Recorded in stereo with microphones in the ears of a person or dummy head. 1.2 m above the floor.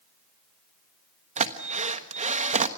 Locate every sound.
1.4 s a drill: 40° right (ahead or behind), 1.2 m